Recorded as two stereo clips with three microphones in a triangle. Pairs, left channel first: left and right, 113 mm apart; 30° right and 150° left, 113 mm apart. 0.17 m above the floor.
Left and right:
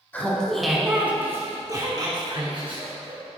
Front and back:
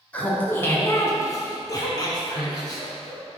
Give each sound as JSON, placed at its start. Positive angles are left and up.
{"t": 0.1, "sound": "laughter", "azimuth_deg": 30, "distance_m": 1.3}